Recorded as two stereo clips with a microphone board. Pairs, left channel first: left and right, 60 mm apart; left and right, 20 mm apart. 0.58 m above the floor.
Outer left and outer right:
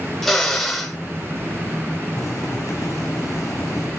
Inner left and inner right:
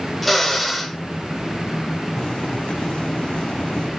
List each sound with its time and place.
0.2 s a drill: 5° left (ahead or behind), 2.5 m
2.2 s boiling: 65° left (ahead or behind), 5 m